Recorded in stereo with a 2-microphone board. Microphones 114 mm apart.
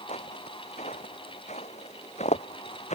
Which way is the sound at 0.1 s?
80° left.